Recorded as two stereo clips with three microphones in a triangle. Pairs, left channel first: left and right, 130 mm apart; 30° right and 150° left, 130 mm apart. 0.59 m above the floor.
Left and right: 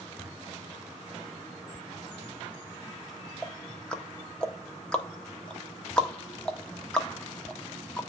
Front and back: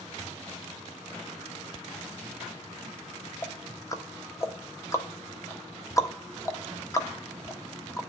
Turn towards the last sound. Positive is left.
turn(degrees=10)